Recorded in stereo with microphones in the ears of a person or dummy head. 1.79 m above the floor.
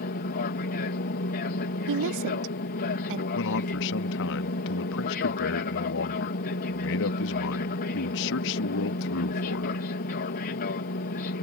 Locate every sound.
0.0 s an aircraft: 45° left (ahead or behind)
1.9 s a woman speaking: 65° right (ahead or behind)
3.4 s a man speaking: 60° left (ahead or behind)